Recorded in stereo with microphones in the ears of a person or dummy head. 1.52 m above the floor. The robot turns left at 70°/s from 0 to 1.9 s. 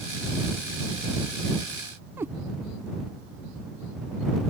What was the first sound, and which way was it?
A cat meowing, 10° right (ahead or behind).